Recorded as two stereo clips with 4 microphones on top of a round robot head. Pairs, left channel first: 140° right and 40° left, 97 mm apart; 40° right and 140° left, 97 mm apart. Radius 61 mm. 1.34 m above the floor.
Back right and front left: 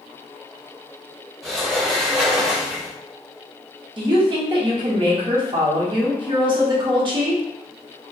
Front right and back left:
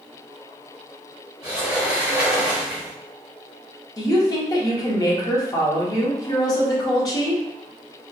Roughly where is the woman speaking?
Ahead.